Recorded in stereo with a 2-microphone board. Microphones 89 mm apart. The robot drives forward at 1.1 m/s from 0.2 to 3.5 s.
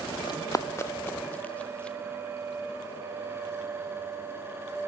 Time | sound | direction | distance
0.3 | running footsteps | 50° left (ahead or behind) | 1.1 m